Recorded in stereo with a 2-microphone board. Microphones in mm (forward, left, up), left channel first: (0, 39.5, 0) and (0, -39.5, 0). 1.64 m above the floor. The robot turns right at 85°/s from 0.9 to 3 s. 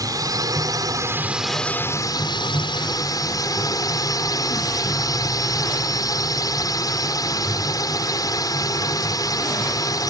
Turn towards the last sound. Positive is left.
turn(degrees=130)